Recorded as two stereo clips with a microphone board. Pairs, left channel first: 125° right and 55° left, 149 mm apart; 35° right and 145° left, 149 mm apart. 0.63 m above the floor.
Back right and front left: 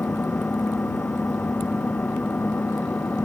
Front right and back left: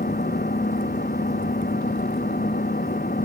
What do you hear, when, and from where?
0.0 s an engine running: 45° right